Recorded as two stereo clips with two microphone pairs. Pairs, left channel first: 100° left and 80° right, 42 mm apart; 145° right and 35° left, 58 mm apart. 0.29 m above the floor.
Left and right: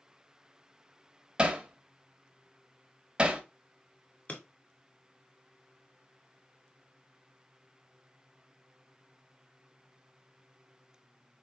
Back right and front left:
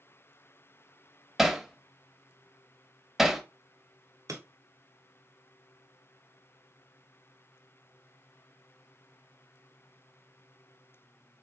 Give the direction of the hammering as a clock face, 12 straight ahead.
1 o'clock.